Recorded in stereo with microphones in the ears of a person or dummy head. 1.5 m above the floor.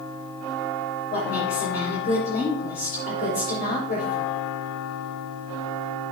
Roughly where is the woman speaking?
Left.